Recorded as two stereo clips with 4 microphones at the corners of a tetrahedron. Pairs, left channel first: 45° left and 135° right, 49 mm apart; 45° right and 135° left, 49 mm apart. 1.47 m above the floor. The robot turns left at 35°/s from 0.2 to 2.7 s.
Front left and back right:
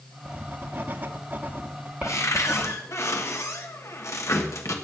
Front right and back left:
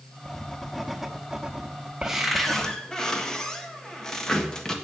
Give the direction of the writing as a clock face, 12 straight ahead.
4 o'clock.